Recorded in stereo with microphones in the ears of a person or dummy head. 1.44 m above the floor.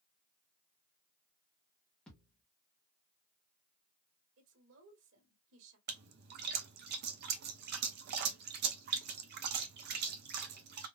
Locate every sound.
2.1 s a thud: 5° left (ahead or behind), 1.0 m
4.4 s a woman speaking: 70° right (ahead or behind), 1.5 m
5.9 s a splash: 55° right (ahead or behind), 0.6 m